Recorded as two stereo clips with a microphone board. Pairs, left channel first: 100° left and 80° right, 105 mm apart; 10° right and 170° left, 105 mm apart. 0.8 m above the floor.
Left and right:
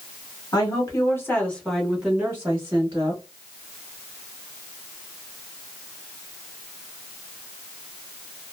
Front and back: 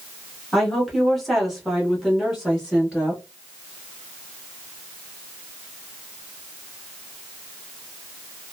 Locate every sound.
0.5 s a woman speaking: 80° left, 1.3 m; by 3.2 s 100° right, 1.3 m